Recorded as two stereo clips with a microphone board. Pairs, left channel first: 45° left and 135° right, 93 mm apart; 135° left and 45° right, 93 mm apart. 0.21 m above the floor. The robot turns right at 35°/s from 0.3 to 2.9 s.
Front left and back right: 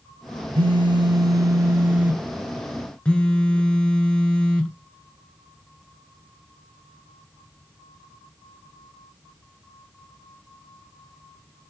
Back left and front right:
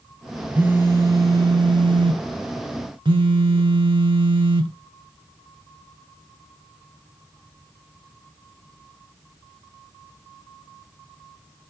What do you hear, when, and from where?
0.6 s a phone buzzing: 115° right, 0.7 m; by 4.7 s 35° right, 0.7 m